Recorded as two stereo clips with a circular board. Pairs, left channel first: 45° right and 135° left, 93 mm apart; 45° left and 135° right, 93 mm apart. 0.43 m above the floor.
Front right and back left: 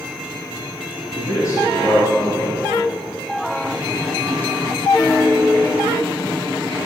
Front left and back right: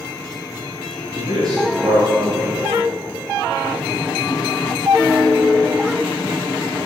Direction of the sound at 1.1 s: 90° right.